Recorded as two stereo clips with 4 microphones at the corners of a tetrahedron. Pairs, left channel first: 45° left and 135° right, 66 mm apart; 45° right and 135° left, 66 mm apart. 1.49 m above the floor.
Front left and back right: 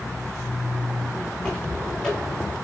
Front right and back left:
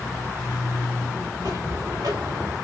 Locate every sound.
1.3 s footsteps: 125° left, 9 m; by 2.5 s 120° left, 8.5 m